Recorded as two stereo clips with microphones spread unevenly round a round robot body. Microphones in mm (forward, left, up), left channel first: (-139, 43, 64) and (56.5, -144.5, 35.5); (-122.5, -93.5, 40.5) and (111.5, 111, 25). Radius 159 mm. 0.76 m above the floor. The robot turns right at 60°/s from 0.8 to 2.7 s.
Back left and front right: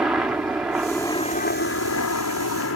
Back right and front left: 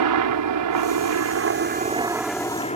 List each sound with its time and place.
0.0 s a helicopter: 40° left; by 2.8 s 155° left